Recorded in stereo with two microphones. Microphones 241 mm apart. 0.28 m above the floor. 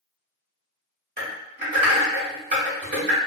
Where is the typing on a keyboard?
40° right (ahead or behind), 1.5 m.